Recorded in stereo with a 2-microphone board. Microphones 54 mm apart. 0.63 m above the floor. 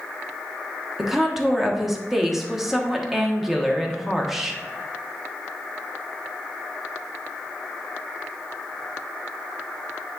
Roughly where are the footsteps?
I don't hear footsteps.